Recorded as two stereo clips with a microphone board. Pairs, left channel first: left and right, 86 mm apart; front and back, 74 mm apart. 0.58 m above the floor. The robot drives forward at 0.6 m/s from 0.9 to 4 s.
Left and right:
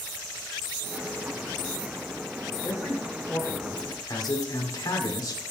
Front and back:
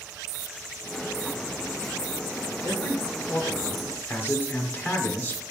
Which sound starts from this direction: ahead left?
A man speaking, at 2.6 s.